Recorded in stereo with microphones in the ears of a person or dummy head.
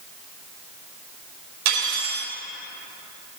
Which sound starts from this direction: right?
Cutlery clinking, at 1.6 s.